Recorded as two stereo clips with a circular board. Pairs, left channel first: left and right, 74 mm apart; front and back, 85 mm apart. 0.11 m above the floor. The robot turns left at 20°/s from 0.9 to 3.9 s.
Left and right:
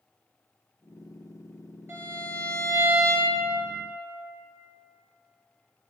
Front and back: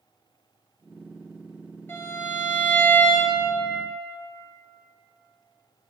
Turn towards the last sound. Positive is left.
turn(degrees=-90)